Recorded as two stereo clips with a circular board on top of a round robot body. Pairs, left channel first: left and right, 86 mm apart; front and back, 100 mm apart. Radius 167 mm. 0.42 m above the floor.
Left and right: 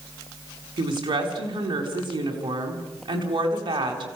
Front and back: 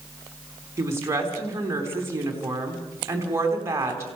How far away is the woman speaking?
About 5.5 m.